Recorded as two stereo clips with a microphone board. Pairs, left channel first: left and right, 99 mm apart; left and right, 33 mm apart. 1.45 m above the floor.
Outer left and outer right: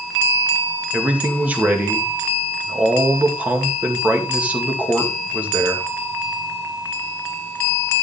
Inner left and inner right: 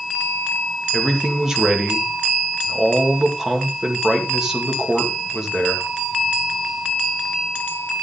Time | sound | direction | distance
0.9 | a man speaking | 15° right (ahead or behind) | 2 m